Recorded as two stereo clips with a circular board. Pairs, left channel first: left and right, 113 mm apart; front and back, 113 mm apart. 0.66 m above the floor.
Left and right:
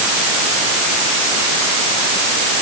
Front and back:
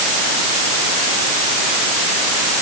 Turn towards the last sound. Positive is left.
No sound to turn to.